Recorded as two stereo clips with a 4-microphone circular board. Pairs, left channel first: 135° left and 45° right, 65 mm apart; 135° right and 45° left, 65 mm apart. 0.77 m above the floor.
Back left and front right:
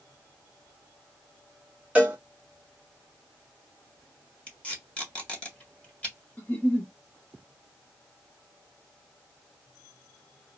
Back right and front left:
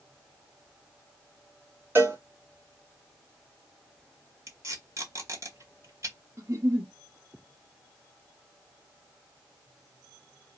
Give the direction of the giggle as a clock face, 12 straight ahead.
10 o'clock.